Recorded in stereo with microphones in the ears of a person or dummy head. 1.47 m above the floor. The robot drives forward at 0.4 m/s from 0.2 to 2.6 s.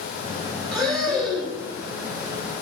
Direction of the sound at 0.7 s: Centre (ahead or behind).